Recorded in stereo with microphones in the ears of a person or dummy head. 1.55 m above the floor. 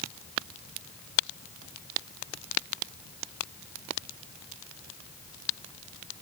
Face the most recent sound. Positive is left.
No sound to turn to.